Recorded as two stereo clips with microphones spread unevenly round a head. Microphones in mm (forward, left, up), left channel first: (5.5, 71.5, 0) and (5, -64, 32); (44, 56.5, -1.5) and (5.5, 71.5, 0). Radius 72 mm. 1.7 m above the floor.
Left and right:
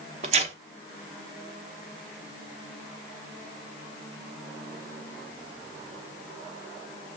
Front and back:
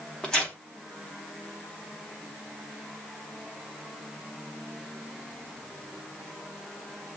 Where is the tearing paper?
105° right, 0.8 m.